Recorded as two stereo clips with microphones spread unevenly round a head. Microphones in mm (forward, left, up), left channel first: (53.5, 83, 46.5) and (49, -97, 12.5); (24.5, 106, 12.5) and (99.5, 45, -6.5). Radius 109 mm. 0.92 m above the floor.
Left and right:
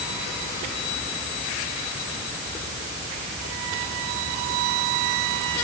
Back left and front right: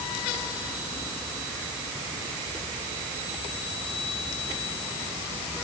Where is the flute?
No flute in this recording.